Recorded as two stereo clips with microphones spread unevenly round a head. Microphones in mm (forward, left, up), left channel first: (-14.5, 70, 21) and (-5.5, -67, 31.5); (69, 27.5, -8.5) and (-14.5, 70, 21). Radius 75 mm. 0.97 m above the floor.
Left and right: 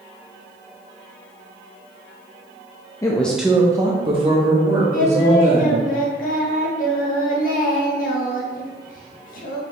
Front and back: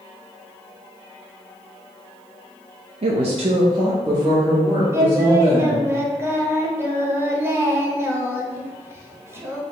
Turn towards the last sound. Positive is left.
turn(degrees=85)